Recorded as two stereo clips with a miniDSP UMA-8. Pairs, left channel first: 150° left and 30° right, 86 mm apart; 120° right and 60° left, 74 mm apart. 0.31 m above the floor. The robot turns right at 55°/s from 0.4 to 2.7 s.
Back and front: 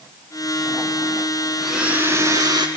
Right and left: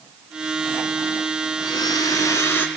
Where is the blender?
120° right, 1.9 m; by 2.7 s 60° right, 1.9 m.